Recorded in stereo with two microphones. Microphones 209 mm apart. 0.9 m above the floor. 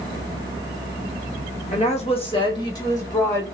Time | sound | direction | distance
1.7 | a woman speaking | 35° left (ahead or behind) | 1.1 m